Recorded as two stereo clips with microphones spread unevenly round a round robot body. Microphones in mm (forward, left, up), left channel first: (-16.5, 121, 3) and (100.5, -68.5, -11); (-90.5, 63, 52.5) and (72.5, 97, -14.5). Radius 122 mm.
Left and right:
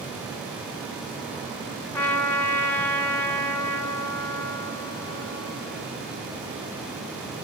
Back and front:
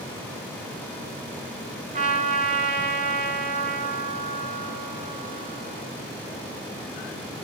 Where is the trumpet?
40° left, 3 m.